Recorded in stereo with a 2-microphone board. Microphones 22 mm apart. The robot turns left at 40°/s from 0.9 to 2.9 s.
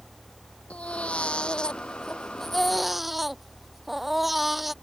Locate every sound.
0.7 s a baby crying: 75° left; by 4.7 s 5° right